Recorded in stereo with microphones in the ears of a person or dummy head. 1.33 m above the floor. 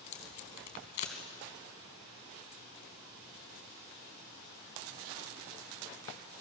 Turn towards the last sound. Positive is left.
turn(degrees=40)  # may be behind; listen again after turning